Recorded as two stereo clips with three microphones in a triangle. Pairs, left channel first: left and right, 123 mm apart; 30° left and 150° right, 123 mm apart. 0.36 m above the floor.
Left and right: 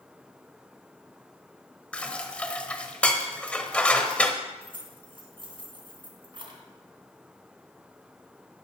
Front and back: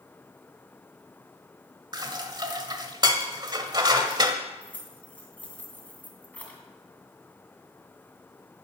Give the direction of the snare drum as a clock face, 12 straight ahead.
I don't hear a snare drum.